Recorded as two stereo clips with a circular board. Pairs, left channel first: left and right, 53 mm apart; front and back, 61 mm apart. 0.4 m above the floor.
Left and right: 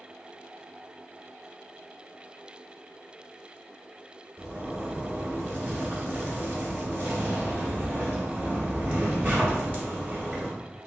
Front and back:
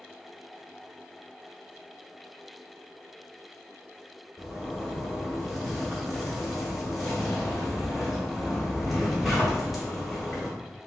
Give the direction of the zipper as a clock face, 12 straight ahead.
3 o'clock.